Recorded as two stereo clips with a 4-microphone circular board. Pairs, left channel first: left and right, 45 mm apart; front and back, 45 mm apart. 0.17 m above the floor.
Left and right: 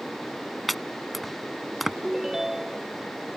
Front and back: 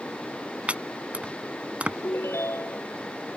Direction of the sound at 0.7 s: Straight behind.